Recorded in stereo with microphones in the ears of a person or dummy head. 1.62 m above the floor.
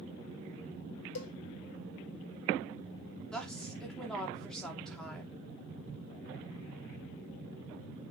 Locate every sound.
1.1 s a cowbell: 85° left, 1.2 m
3.3 s a woman speaking: 5° left (ahead or behind), 3 m